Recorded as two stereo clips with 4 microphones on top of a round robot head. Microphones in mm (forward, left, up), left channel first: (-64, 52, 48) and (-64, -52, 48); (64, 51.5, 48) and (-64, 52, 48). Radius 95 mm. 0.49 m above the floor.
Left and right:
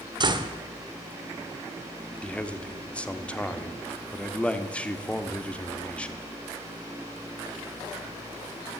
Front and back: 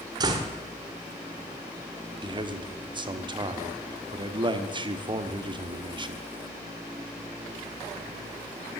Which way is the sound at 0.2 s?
125° right.